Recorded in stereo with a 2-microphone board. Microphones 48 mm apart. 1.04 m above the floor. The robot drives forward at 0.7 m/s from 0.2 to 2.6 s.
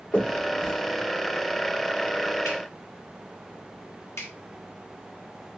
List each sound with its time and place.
0.1 s a finger snap: 40° left (ahead or behind), 2.5 m; by 4.3 s 90° left, 1.5 m